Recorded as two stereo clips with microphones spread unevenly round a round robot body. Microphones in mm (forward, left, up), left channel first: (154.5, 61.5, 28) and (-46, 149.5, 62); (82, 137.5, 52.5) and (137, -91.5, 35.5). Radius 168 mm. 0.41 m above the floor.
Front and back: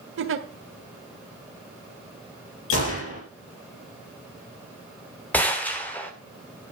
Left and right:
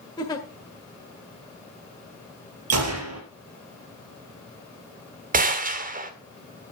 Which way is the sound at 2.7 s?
65° right.